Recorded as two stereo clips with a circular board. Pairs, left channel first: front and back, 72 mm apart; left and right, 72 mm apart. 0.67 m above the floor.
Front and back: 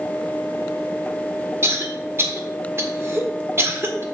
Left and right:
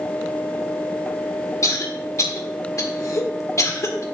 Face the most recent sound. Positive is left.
turn(degrees=130)